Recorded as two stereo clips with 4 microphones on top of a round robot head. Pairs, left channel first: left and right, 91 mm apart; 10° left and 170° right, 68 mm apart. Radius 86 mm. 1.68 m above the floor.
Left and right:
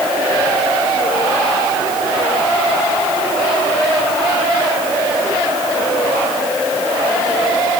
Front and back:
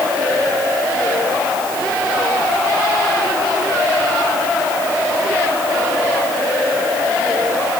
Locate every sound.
Only background noise.